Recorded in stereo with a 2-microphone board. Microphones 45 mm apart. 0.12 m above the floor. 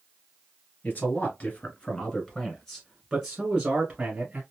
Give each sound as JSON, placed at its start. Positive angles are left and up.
{"t": 0.8, "sound": "a man speaking", "side_deg": 35, "distance_m": 1.8}